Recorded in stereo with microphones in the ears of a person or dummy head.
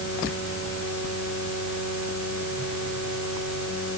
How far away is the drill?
I don't hear a drill.